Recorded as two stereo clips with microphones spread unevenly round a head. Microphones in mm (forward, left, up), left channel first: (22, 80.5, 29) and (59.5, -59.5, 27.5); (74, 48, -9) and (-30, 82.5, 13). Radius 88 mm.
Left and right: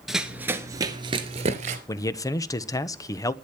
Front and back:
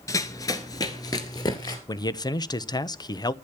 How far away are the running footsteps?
About 1.6 m.